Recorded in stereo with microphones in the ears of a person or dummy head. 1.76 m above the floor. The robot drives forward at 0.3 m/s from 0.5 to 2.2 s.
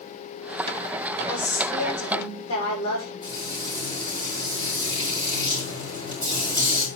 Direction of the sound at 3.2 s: 25° left (ahead or behind).